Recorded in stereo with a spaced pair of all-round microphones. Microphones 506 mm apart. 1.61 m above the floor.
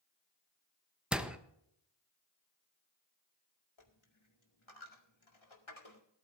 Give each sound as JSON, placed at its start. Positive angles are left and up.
{"t": 1.1, "sound": "a door slam", "side_deg": 0, "distance_m": 0.9}
{"t": 3.8, "sound": "a dropped coin", "side_deg": 65, "distance_m": 2.0}